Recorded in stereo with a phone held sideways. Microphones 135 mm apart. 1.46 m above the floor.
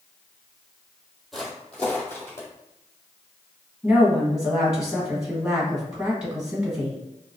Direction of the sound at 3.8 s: 5° right (ahead or behind).